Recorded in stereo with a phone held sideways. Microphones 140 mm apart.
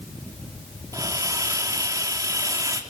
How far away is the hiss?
About 3 m.